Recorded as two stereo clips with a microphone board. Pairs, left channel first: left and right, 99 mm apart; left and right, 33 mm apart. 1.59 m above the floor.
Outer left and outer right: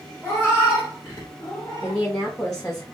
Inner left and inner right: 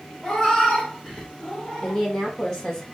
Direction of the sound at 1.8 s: 20° left (ahead or behind).